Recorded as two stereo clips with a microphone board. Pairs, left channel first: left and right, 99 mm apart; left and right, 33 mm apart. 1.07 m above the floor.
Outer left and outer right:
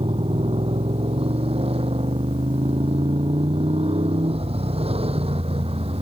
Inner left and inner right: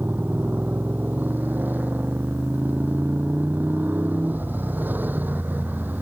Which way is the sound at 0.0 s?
80° right.